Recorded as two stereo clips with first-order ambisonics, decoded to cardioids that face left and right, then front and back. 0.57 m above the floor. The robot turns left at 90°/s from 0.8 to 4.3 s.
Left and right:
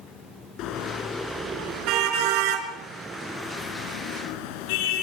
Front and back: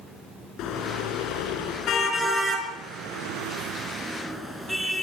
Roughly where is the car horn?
Ahead left.